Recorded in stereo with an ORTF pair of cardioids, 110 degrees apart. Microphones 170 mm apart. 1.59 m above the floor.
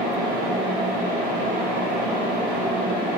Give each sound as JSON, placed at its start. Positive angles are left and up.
{"t": 0.0, "sound": "a fan", "azimuth_deg": -50, "distance_m": 2.5}